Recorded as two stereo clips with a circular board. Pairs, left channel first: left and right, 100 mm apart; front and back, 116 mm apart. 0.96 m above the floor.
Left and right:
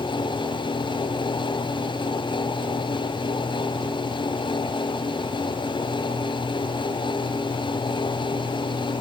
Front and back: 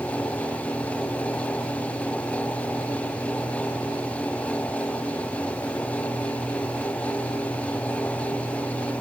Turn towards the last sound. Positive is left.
No sound to turn to.